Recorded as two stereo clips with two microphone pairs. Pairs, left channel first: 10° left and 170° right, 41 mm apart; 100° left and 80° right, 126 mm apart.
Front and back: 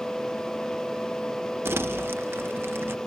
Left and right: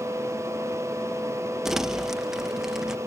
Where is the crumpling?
170° right.